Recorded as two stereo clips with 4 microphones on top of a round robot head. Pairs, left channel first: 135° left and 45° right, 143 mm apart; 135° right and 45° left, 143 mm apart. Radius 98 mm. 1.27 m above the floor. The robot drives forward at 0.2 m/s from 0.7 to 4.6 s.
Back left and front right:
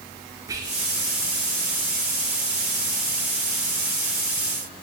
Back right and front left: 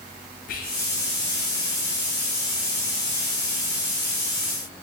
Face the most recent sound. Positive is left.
turn(degrees=-150)